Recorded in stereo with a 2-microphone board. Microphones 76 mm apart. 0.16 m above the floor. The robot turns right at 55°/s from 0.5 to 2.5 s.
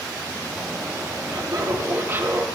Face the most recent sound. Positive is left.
turn(degrees=-10)